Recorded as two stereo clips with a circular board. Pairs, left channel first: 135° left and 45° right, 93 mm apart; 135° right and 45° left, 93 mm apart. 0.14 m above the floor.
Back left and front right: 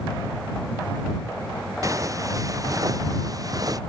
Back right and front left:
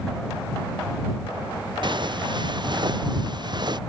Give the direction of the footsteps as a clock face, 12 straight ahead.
12 o'clock.